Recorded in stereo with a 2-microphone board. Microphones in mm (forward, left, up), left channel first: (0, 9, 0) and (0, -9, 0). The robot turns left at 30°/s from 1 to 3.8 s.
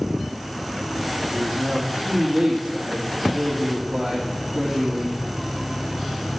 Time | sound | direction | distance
1.2 | a man speaking | 65° right | 3 m